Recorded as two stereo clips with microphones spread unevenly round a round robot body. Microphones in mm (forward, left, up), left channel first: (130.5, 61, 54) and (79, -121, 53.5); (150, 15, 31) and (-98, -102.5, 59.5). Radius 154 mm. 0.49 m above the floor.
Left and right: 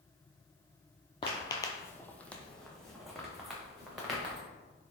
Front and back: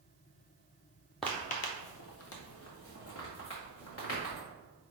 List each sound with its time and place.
1.2 s footsteps: 125° left, 0.5 m; by 4.4 s 15° right, 3 m